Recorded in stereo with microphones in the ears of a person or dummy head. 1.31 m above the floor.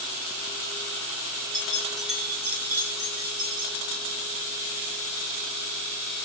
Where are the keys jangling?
5° left (ahead or behind), 1.8 m; by 3.8 s 30° right (ahead or behind), 2.5 m.